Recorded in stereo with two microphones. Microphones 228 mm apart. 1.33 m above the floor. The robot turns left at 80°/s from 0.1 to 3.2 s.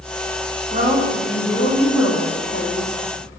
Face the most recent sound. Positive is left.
turn(degrees=20)